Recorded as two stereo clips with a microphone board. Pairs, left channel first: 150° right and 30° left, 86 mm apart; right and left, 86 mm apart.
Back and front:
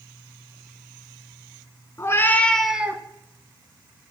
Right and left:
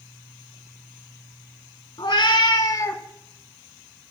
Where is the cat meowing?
100° right, 0.8 m; by 3.0 s 30° right, 0.5 m.